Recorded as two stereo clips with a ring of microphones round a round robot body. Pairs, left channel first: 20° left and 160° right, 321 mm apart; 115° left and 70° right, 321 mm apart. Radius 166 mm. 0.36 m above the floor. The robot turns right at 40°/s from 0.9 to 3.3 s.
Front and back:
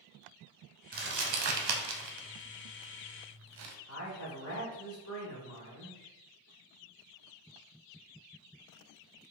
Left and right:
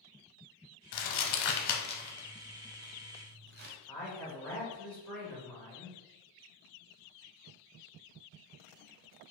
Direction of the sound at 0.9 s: 135° left.